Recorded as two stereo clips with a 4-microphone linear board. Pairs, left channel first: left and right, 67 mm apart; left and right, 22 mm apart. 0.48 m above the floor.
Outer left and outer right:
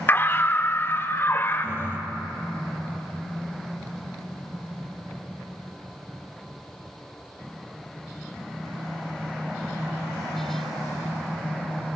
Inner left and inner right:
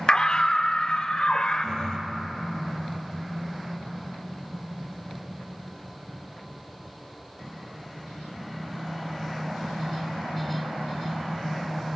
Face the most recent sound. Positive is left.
turn(degrees=35)  # may be behind; listen again after turning